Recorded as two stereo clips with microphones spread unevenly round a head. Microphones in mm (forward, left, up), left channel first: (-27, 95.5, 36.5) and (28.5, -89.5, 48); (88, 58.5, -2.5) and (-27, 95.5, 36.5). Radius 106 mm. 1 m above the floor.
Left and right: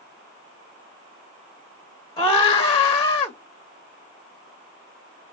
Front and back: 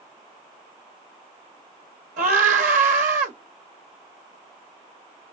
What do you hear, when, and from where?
2.2 s a scream: straight behind, 1.5 m